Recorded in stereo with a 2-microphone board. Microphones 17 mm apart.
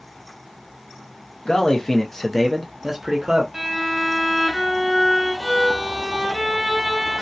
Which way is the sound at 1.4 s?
55° left (ahead or behind).